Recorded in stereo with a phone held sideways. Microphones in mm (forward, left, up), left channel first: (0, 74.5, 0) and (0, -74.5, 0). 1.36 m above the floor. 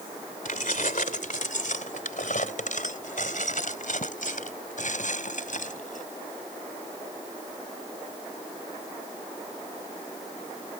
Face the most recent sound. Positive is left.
turn(degrees=65)  # may be behind; listen again after turning